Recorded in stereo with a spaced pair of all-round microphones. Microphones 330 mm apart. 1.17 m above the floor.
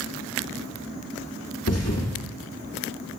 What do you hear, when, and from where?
1.7 s a thud: 50° left (ahead or behind), 1.5 m